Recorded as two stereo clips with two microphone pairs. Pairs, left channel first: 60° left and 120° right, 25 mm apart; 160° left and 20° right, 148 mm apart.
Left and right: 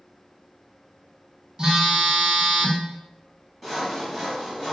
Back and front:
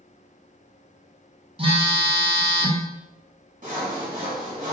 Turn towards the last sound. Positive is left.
turn(degrees=-30)